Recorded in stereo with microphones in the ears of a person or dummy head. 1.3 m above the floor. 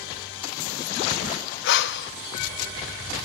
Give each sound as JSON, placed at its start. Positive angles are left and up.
{"t": 1.6, "sound": "breathing", "side_deg": 60, "distance_m": 1.0}